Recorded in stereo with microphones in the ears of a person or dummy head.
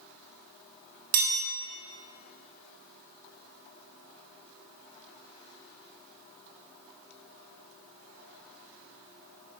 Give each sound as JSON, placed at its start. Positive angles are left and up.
{"t": 1.1, "sound": "a chime", "side_deg": -40, "distance_m": 0.7}